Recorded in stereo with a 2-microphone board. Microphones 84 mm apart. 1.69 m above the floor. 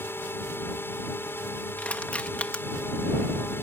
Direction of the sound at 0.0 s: 25° left (ahead or behind).